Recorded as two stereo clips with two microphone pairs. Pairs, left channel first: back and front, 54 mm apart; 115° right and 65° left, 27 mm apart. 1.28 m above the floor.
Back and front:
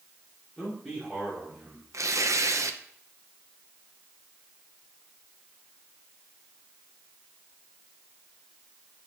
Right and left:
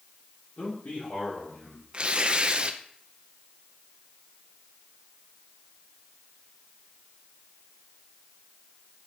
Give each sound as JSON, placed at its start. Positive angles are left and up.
{"t": 0.6, "sound": "a man speaking", "azimuth_deg": -105, "distance_m": 3.0}
{"t": 1.9, "sound": "tearing paper", "azimuth_deg": 15, "distance_m": 0.6}